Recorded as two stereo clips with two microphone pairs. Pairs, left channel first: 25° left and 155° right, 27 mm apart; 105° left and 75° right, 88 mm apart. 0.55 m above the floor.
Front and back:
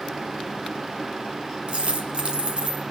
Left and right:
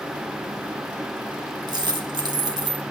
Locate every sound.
1.7 s a dropped coin: 110° right, 1.4 m